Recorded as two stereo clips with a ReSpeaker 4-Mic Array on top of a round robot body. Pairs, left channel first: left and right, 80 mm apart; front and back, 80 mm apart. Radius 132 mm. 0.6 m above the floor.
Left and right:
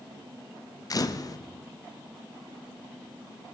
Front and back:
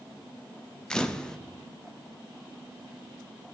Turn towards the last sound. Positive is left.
turn(degrees=80)